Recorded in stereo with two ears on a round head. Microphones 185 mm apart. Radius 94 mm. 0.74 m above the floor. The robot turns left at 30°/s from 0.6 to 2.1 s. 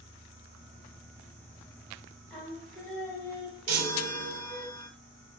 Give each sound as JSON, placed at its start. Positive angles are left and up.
{"t": 2.3, "sound": "singing", "side_deg": 0, "distance_m": 1.0}
{"t": 3.7, "sound": "a chime", "side_deg": -80, "distance_m": 0.6}